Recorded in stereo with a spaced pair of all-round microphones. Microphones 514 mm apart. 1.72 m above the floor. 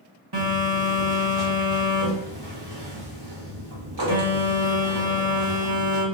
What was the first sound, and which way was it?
A phone buzzing, 50° right (ahead or behind).